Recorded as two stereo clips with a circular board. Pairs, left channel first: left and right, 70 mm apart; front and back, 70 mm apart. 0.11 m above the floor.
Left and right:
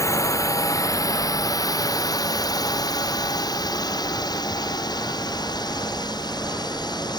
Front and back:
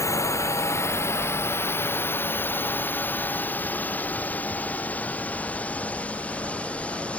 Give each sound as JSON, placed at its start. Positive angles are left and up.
{"t": 0.0, "sound": "a drone", "azimuth_deg": 45}